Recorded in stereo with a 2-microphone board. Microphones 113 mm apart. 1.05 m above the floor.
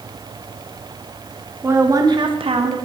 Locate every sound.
1.6 s a woman speaking: 20° right (ahead or behind), 1.4 m; by 2.8 s 60° right (ahead or behind), 1.2 m